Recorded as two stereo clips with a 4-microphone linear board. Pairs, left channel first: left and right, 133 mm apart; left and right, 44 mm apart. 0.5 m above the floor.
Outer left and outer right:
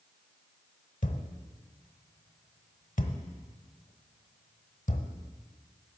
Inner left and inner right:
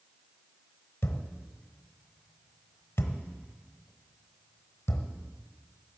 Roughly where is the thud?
Left.